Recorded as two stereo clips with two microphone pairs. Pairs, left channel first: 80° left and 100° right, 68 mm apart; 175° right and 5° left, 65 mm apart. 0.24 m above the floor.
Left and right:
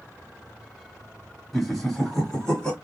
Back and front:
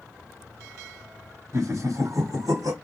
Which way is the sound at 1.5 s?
10° right.